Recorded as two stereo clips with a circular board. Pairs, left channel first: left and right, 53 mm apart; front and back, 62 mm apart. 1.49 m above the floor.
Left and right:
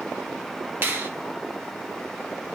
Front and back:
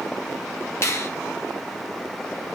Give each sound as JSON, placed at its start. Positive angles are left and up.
{"t": 0.8, "sound": "a finger snap", "azimuth_deg": -40, "distance_m": 0.6}